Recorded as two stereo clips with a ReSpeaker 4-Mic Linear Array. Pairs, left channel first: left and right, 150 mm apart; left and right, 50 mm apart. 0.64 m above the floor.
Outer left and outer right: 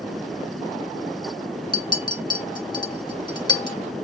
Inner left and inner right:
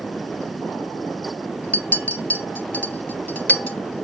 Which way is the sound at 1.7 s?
30° left (ahead or behind).